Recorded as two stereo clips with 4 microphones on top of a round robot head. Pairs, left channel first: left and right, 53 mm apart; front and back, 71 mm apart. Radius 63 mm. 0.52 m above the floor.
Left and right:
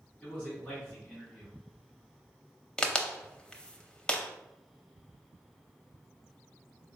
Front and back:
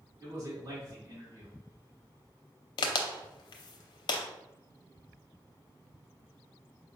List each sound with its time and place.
0.2 s a man speaking: 155° left, 1.9 m
2.8 s a crack: 15° left, 0.6 m